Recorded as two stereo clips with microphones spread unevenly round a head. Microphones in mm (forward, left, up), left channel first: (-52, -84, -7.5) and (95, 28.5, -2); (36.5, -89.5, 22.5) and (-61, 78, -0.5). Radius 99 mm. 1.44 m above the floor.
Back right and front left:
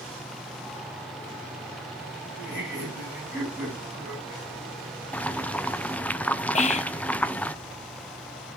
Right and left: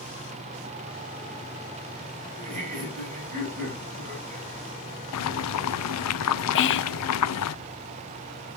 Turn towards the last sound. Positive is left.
turn(degrees=-90)